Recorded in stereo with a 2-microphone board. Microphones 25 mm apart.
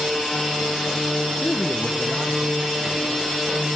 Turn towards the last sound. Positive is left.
turn(degrees=-15)  # may be behind; listen again after turning